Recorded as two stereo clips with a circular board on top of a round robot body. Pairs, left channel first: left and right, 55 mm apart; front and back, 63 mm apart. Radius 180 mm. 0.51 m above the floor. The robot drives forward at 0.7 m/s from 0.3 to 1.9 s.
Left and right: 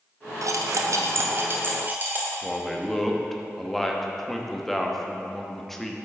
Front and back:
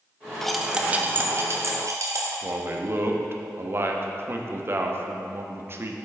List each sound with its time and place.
0.4 s cutlery clinking: 80° right, 0.7 m; by 2.3 s 145° right, 1.2 m
2.4 s a man speaking: 175° left, 1.0 m